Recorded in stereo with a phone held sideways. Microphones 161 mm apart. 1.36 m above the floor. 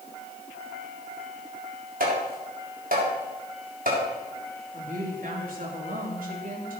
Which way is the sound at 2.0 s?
60° right (ahead or behind).